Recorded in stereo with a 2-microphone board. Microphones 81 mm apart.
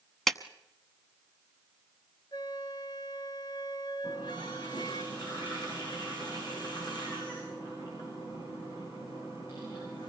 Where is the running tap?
65° left (ahead or behind), 9 m.